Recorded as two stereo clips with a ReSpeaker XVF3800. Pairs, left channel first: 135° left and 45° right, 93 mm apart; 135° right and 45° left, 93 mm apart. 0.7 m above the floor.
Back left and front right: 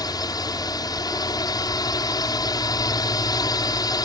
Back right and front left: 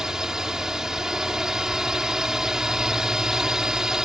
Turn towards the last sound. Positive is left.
turn(degrees=125)